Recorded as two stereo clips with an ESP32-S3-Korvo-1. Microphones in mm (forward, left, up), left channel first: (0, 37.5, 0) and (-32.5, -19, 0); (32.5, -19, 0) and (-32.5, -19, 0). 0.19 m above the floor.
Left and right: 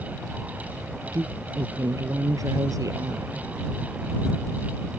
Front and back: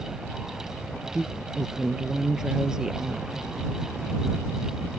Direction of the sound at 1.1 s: 100° right.